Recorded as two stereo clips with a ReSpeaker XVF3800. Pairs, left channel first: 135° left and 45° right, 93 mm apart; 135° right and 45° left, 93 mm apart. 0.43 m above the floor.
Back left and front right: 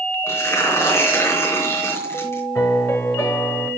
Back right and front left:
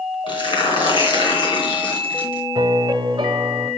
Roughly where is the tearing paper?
Behind.